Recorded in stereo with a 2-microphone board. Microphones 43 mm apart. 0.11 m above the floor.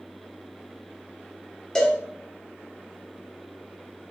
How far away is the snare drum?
No snare drum in this recording.